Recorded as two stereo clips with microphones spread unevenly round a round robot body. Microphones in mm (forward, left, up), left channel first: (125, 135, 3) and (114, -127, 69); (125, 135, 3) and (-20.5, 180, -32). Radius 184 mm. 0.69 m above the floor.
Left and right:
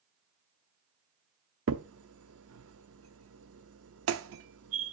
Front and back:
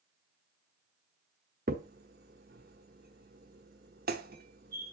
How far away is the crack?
About 0.6 m.